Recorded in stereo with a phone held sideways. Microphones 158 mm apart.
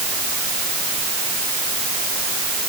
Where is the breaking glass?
No breaking glass in this recording.